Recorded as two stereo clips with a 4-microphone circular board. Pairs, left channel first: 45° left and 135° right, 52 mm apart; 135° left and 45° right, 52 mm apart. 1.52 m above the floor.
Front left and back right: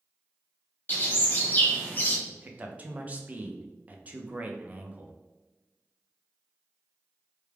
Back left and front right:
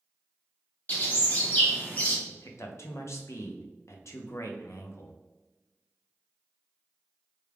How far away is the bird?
About 1.0 m.